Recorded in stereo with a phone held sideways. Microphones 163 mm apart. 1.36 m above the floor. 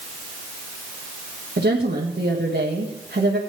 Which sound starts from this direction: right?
A woman speaking, at 1.6 s.